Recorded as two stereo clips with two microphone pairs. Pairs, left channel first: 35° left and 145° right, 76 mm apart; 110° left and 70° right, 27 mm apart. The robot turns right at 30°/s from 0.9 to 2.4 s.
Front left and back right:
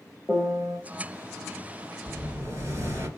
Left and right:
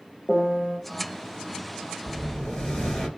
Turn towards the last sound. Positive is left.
turn(degrees=170)